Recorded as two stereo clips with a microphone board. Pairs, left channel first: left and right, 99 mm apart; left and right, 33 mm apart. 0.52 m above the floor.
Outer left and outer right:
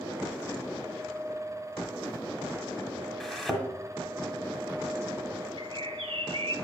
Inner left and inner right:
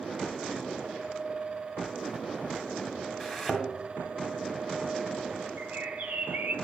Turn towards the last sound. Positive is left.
turn(degrees=-60)  # may be behind; listen again after turning